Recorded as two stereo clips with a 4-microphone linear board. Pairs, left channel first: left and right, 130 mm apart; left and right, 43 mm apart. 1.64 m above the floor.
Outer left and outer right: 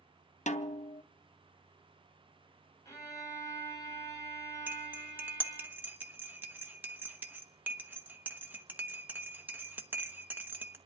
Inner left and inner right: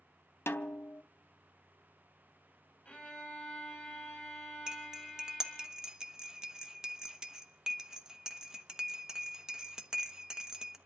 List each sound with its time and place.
0.5 s a snare drum: 65° left (ahead or behind), 0.6 m
2.9 s a violin: 25° left (ahead or behind), 3 m
4.7 s cutlery clinking: 15° right (ahead or behind), 0.9 m